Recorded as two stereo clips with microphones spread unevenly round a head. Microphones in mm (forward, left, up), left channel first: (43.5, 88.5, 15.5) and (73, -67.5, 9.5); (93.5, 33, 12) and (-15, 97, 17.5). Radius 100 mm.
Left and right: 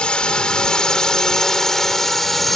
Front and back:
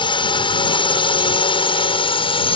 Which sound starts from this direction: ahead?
A drone, at 0.0 s.